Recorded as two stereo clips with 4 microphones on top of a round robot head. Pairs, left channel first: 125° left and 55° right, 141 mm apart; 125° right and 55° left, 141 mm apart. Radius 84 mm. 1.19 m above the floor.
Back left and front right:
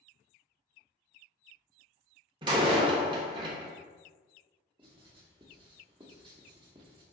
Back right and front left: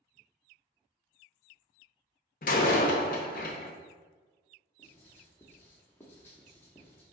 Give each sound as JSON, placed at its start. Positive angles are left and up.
{"t": 2.4, "sound": "a door slam", "azimuth_deg": -105, "distance_m": 0.6}
{"t": 4.8, "sound": "writing", "azimuth_deg": -65, "distance_m": 0.7}